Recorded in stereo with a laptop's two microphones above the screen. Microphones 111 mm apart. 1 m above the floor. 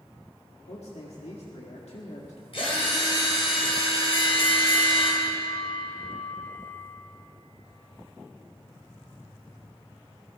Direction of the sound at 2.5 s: 60° left (ahead or behind).